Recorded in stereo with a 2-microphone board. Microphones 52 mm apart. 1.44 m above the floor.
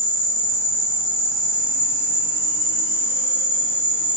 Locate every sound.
0.0 s an insect: 45° right (ahead or behind), 1.3 m